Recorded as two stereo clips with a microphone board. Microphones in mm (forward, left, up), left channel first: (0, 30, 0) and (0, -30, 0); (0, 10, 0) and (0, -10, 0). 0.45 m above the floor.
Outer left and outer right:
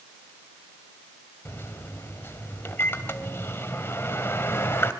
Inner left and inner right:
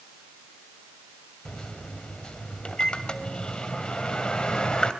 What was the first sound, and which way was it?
A microwave, 35° left (ahead or behind).